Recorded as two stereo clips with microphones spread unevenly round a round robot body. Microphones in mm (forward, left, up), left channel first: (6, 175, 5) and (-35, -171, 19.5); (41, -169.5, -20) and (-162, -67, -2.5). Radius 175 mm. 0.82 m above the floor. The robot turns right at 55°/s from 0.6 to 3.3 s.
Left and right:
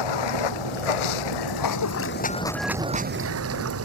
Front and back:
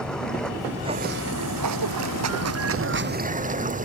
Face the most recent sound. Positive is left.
turn(degrees=-150)